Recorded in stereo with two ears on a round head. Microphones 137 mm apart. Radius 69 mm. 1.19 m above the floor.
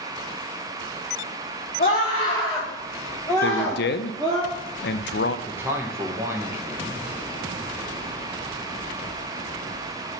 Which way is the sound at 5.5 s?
15° right (ahead or behind).